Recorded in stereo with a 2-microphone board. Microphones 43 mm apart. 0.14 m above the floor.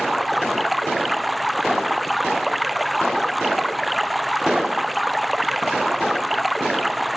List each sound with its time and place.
0.0 s running water: centre (ahead or behind)